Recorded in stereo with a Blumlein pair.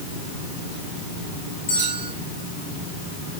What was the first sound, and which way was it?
A bell, 65° left.